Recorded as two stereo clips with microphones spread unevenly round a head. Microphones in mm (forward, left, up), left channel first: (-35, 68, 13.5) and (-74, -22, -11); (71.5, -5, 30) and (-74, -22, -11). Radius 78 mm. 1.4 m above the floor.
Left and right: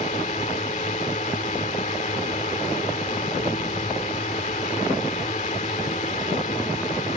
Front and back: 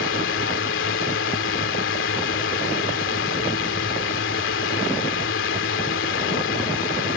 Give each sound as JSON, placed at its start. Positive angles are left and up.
{"t": 0.0, "sound": "a drone", "azimuth_deg": 20}